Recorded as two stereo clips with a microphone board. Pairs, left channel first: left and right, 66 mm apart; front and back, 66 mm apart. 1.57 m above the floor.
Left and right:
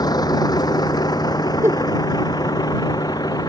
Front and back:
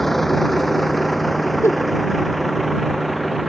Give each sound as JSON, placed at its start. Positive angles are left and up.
{"t": 0.0, "sound": "a vehicle", "azimuth_deg": 85}
{"t": 1.6, "sound": "a giggle", "azimuth_deg": -45}